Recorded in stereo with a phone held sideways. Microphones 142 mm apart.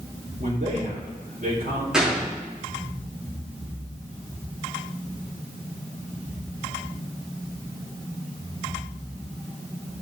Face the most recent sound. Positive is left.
turn(degrees=-5)  # may be behind; listen again after turning